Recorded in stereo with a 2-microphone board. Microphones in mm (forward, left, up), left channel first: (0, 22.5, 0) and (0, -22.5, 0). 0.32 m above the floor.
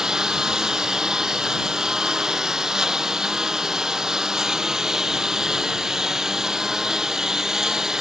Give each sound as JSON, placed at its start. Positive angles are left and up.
{"t": 0.0, "sound": "a lawn mower", "side_deg": -15}